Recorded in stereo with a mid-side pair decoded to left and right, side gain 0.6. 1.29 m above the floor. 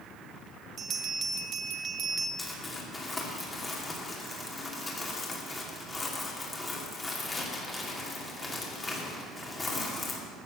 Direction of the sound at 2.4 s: 20° left.